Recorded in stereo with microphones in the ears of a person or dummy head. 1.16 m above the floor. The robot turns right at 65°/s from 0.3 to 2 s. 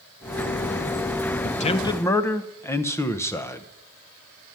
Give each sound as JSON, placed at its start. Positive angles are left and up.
{"t": 1.4, "sound": "a man speaking", "azimuth_deg": 130, "distance_m": 0.8}